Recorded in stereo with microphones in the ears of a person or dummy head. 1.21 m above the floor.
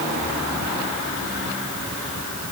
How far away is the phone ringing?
No phone ringing in this recording.